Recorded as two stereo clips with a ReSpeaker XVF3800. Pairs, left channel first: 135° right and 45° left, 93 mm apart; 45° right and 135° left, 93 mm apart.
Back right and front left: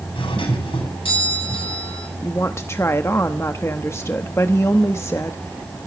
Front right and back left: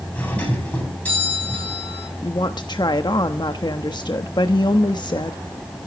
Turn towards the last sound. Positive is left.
turn(degrees=-75)